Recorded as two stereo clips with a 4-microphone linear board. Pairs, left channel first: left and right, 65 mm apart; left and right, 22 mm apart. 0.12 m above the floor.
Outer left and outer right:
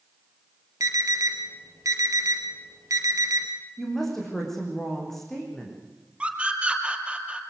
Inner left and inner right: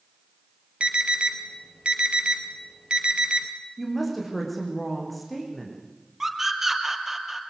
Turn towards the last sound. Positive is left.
turn(degrees=-15)  # may be behind; listen again after turning